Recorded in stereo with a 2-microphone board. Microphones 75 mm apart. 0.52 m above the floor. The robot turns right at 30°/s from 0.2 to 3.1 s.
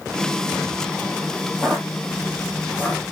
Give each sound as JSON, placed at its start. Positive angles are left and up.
{"t": 1.6, "sound": "footsteps", "side_deg": 10, "distance_m": 1.0}